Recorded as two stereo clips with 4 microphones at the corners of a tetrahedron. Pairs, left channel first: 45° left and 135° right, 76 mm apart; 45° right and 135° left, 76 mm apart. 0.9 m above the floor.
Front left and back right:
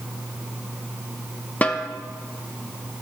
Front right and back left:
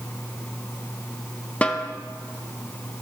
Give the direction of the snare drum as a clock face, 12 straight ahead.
12 o'clock.